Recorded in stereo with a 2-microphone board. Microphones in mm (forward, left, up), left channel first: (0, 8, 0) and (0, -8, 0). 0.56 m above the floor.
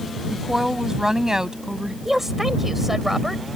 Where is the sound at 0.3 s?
20° right (ahead or behind); by 1.9 s 45° right (ahead or behind).